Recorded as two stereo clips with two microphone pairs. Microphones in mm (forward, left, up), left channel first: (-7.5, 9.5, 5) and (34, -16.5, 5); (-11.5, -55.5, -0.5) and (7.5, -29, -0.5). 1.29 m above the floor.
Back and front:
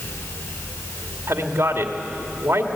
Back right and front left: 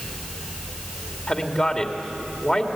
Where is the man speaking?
65° right, 2.5 m.